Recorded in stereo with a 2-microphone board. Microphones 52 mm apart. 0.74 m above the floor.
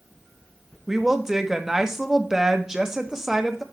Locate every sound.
0.9 s a woman speaking: 10° right (ahead or behind), 0.8 m